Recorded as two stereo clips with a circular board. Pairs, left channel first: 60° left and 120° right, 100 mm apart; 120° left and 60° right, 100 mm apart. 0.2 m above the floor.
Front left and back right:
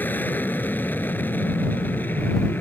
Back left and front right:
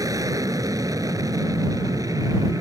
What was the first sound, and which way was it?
An aircraft, 10° right.